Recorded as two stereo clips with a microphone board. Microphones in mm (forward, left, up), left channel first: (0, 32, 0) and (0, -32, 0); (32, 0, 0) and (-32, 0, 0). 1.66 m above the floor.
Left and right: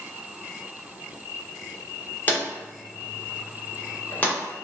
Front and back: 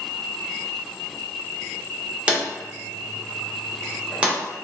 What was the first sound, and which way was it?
A drawer, 125° left.